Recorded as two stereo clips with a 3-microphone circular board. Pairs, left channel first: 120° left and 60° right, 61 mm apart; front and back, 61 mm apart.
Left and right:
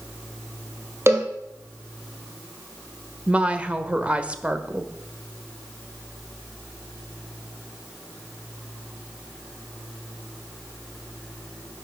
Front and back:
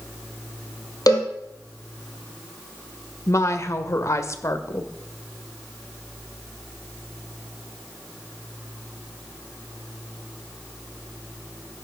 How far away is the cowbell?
About 3.5 m.